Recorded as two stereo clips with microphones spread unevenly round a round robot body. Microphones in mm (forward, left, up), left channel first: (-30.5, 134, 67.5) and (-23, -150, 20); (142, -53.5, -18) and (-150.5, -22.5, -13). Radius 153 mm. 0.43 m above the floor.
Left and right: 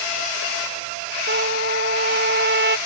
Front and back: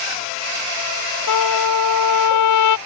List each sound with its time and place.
1.3 s a trumpet: 30° right